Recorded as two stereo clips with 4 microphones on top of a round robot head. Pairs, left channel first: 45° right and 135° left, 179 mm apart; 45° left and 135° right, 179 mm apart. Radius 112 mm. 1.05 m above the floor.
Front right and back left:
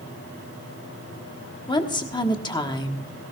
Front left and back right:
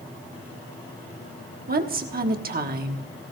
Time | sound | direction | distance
1.7 | a woman speaking | 105° right | 1.3 m